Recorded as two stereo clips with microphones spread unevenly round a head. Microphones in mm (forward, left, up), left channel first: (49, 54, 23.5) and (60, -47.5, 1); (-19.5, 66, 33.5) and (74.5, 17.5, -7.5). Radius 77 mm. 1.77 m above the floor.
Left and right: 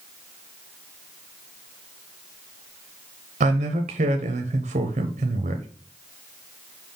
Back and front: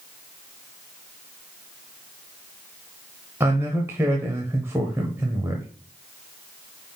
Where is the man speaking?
100° right, 0.8 m.